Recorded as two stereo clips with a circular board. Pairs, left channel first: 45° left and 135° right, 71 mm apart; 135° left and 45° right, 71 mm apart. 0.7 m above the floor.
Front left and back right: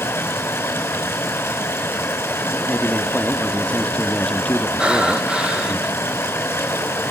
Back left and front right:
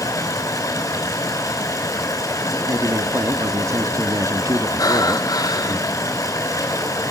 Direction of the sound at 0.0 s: 100° left.